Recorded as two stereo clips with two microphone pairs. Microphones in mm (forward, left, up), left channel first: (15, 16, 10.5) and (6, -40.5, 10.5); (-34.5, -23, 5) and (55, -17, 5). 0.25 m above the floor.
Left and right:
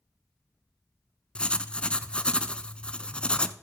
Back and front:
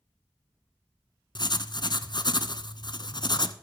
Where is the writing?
150° left, 0.6 m.